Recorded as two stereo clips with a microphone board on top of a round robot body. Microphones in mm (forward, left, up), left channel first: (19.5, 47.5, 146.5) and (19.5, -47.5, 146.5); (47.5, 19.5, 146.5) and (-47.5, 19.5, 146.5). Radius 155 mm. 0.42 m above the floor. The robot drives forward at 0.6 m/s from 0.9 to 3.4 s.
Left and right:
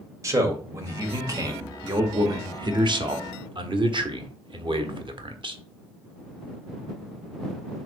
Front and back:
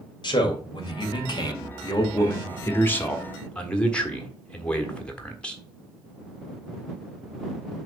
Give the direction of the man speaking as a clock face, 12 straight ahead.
1 o'clock.